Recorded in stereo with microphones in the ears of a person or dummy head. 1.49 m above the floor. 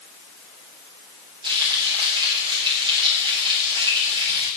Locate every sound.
1.4 s frying: 30° right (ahead or behind), 6.5 m